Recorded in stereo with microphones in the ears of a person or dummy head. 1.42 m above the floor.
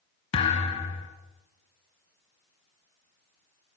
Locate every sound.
0.3 s a thud: 30° left (ahead or behind), 2.5 m